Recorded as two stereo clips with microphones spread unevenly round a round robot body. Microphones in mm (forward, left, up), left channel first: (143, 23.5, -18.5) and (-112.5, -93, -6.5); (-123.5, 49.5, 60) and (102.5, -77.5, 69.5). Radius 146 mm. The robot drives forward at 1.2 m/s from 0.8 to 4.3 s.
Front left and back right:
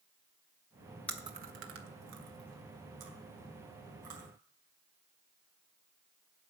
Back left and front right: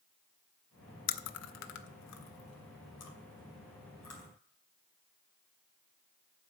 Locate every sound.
1.1 s chewing: 105° left, 0.6 m; by 4.3 s 175° left, 4 m